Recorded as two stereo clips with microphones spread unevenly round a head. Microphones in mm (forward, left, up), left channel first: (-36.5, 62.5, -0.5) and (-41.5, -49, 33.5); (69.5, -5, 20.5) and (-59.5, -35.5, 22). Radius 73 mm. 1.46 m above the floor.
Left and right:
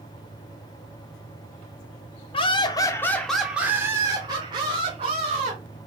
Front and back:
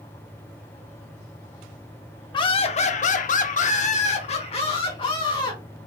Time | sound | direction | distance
2.3 | laughter | 65° left | 0.6 m